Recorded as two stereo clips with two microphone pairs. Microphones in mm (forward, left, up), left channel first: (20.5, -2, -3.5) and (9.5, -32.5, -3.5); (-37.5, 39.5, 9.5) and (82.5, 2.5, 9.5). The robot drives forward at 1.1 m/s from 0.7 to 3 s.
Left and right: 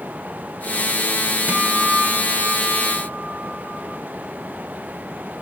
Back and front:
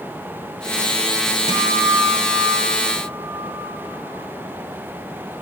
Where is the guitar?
70° right, 3 m; by 3.8 s 100° right, 3 m.